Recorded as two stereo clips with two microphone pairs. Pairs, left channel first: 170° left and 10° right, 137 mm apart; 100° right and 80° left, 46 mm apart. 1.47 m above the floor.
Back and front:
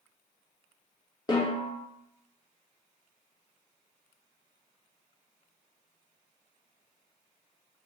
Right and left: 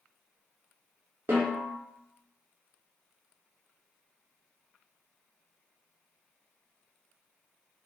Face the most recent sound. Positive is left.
turn(degrees=115)